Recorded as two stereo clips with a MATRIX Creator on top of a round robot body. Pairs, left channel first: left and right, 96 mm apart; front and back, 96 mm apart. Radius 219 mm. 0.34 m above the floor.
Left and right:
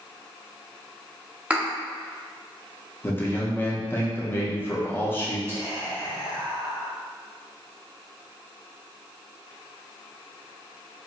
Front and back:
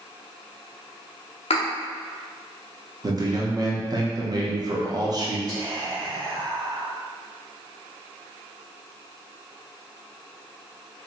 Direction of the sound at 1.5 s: 15° right.